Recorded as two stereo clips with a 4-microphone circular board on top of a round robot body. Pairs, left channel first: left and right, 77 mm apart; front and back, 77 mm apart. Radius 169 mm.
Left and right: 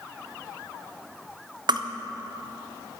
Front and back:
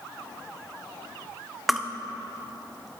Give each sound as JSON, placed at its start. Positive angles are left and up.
{"t": 1.7, "sound": "crushing", "azimuth_deg": -90, "distance_m": 0.9}